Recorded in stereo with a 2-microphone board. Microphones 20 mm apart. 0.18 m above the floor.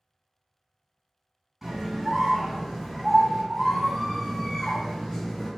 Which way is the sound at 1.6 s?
10° right (ahead or behind).